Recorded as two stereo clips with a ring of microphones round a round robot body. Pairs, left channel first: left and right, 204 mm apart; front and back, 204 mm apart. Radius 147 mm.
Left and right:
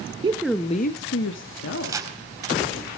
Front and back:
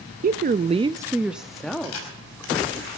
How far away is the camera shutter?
About 4.5 m.